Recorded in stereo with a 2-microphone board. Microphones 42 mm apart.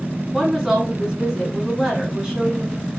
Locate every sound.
0.3 s a woman speaking: 15° right (ahead or behind), 1.4 m